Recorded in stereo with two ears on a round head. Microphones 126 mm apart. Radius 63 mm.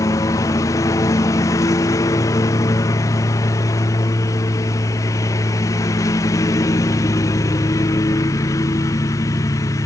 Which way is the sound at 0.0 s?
25° left (ahead or behind).